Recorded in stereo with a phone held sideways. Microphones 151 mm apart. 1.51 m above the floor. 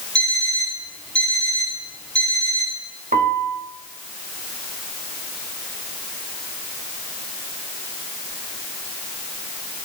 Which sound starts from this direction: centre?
An alarm clock, at 0.1 s.